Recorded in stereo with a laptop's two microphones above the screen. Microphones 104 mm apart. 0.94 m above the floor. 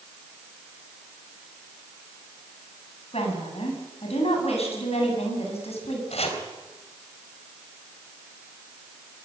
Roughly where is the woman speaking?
Left.